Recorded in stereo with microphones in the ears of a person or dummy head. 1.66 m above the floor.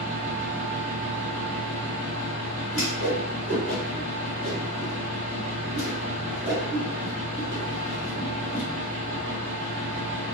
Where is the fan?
40° right (ahead or behind), 1.7 m.